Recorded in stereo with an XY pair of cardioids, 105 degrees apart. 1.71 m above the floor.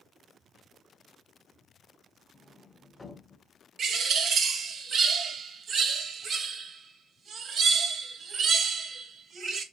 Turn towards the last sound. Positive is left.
turn(degrees=-60)